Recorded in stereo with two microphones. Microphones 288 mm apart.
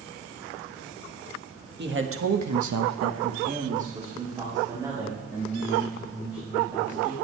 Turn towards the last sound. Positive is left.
turn(degrees=-5)  # may be behind; listen again after turning